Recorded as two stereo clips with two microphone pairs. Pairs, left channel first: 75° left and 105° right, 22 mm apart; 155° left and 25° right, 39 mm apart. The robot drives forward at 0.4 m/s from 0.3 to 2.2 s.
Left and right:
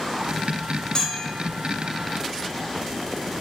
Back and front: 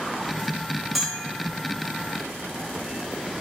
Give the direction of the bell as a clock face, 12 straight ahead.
10 o'clock.